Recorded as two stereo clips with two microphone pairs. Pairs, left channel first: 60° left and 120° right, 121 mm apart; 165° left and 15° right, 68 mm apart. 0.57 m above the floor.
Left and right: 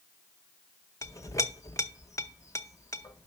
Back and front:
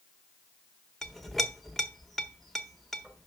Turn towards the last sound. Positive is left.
turn(degrees=85)